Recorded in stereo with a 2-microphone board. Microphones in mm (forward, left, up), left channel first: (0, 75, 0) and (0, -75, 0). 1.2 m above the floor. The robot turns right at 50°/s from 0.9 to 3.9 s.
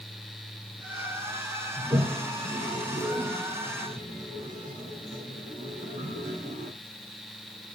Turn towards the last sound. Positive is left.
turn(degrees=-55)  # may be behind; listen again after turning